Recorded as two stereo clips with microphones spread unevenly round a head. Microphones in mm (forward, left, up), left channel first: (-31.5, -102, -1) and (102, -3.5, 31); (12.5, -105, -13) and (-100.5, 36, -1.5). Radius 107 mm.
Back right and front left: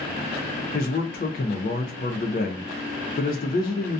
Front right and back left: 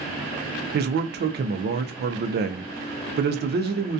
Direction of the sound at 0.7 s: 165° left.